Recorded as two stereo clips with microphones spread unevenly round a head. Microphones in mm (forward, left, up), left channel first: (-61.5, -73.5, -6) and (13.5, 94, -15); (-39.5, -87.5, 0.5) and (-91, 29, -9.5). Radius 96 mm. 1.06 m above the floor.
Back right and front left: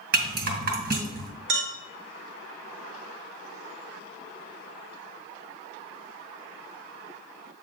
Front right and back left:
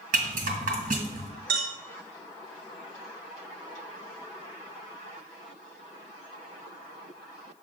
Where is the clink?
85° left, 1.5 m.